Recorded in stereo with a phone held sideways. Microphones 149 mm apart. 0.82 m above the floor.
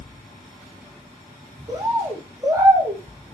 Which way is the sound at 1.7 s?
20° right (ahead or behind).